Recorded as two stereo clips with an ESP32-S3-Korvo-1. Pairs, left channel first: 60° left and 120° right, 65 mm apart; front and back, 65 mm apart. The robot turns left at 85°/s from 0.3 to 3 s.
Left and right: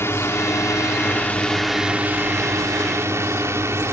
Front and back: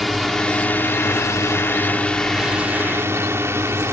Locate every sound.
0.0 s a drone: 90° left; by 3.9 s 150° right